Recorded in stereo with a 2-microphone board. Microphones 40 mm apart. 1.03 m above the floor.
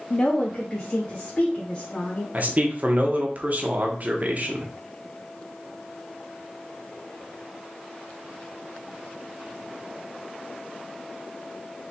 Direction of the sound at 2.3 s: 45° right (ahead or behind).